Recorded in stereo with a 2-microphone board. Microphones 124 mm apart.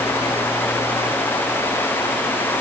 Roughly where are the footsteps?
No footsteps in this recording.